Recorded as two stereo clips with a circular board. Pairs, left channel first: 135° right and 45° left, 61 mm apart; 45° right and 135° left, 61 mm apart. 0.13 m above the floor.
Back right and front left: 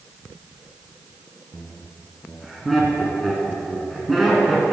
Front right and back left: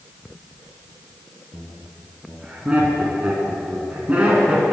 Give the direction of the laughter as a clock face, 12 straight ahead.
8 o'clock.